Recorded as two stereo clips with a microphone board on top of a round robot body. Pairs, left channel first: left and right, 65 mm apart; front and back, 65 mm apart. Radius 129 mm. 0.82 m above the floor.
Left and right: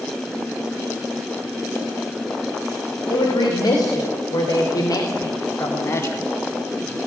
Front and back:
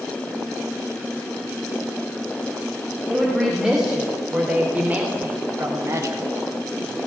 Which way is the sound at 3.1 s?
90° left.